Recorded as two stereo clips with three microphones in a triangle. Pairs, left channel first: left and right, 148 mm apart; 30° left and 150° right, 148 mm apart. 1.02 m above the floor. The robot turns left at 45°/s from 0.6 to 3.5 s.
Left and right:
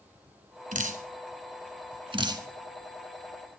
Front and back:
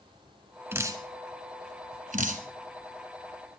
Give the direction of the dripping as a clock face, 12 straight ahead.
3 o'clock.